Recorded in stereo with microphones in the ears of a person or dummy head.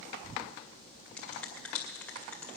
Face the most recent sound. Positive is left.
turn(degrees=10)  # may be behind; listen again after turning